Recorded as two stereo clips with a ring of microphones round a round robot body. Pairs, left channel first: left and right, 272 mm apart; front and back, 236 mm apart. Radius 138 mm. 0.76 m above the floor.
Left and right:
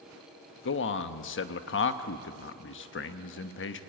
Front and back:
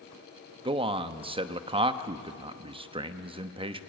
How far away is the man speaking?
About 1.1 m.